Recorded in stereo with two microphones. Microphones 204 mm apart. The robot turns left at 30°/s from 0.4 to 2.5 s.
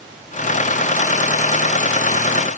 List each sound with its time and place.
Only background noise.